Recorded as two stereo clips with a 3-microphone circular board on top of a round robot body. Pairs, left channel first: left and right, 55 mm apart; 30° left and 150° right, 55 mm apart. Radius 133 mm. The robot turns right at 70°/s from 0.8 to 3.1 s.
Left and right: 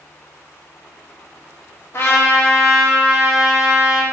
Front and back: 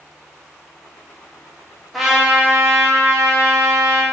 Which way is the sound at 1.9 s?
120° left.